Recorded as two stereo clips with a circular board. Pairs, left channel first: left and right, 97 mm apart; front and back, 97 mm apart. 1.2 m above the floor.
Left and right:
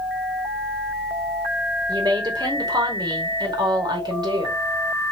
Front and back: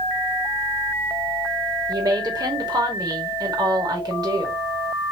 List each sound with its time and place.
1.9 s a woman speaking: 135° right, 2 m